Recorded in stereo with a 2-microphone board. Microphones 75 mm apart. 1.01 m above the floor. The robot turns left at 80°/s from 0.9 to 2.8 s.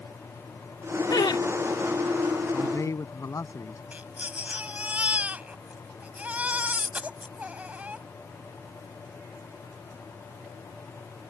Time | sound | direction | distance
1.1 | laughter | 65° left (ahead or behind) | ?
2.5 | a man speaking | 20° left (ahead or behind) | ?
3.9 | a baby crying | 20° right (ahead or behind) | ?